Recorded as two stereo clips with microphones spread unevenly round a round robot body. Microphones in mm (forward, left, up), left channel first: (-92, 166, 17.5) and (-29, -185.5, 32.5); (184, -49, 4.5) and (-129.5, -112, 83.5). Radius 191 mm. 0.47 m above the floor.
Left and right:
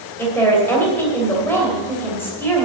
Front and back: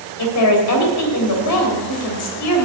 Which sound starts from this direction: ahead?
A woman speaking, at 0.2 s.